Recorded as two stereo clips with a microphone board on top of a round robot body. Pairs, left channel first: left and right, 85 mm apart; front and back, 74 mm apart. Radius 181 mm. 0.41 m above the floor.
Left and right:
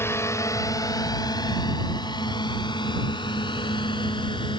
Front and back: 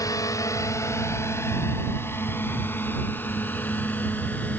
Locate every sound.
0.0 s a drone: 35° left; by 4.6 s 70° left